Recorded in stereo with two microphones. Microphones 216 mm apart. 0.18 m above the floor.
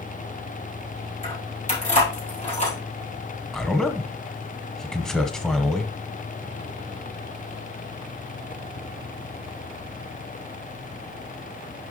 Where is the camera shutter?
I don't hear a camera shutter.